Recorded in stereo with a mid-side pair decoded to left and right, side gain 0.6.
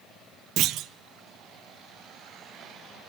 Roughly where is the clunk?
Ahead right.